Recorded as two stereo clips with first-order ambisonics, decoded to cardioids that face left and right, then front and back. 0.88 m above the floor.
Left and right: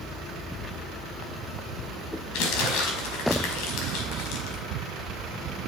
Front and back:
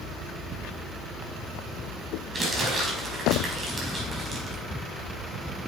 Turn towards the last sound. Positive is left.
turn(degrees=100)